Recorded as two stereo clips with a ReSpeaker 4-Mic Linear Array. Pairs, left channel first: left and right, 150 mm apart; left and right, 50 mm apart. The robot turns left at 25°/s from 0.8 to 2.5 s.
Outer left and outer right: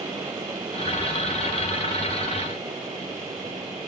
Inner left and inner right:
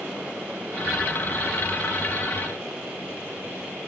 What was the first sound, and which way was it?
Only background noise.